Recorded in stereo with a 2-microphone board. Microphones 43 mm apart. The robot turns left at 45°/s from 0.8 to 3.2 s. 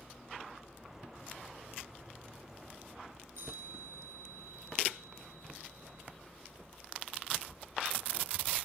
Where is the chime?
85° right, 5.5 m.